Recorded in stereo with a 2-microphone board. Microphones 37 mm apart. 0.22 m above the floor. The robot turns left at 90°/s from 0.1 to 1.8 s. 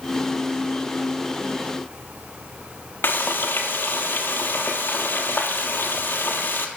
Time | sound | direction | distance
3.0 | frying | 80° left | 1.2 m